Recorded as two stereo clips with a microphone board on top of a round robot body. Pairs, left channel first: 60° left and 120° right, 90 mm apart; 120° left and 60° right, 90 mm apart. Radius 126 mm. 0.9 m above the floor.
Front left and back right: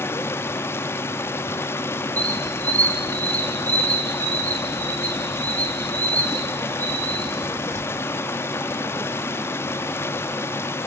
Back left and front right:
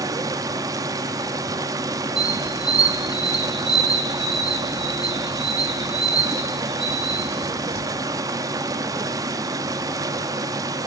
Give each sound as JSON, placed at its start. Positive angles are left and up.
{"t": 0.0, "sound": "running water", "azimuth_deg": -5, "distance_m": 0.8}
{"t": 2.2, "sound": "a squeak", "azimuth_deg": -65, "distance_m": 5.5}